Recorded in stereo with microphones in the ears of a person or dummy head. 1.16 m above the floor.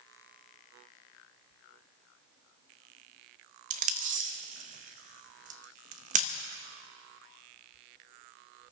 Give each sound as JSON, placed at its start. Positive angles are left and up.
{"t": 3.7, "sound": "tape being pulled", "side_deg": -45, "distance_m": 0.7}